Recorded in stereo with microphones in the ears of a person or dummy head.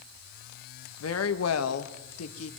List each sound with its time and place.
1.0 s a woman speaking: 75° left (ahead or behind), 1.9 m; by 2.5 s 80° left, 2.5 m